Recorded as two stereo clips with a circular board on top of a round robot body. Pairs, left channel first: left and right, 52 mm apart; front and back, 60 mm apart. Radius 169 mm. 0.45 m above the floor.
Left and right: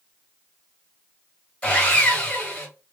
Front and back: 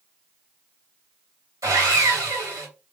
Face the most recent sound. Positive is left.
turn(degrees=160)